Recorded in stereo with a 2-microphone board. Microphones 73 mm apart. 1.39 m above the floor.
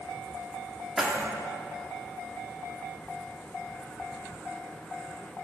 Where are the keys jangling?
5° right (ahead or behind), 1.8 m.